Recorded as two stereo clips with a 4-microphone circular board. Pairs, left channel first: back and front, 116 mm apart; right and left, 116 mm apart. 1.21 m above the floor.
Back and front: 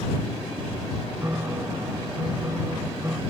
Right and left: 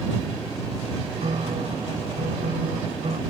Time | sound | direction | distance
1.2 | a piano | 65° left | ?